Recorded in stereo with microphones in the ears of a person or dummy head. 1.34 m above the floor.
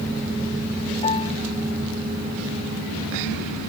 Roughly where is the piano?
Left.